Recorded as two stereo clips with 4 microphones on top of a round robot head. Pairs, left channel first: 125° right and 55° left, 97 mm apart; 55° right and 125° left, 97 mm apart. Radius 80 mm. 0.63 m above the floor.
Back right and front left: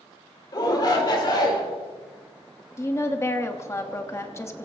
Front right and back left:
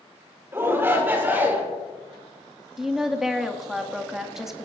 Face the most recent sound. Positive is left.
turn(degrees=-150)